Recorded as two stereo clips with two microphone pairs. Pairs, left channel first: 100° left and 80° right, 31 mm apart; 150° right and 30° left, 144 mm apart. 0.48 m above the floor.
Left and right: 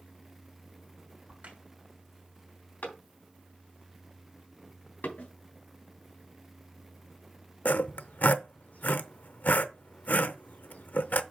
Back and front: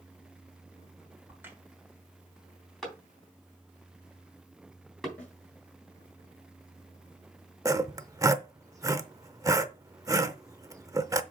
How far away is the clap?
About 3 m.